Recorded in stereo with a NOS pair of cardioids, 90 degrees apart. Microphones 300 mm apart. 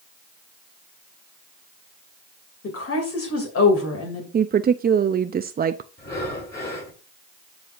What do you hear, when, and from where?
2.6 s a woman speaking: 50° left, 2.5 m
4.3 s a woman speaking: 35° right, 0.5 m
6.0 s breathing: 35° left, 6 m